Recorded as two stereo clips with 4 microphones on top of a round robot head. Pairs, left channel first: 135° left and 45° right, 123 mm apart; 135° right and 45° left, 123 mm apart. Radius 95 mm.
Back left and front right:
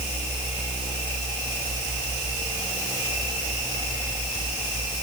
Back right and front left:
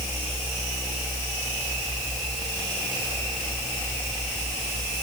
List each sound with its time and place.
Only background noise.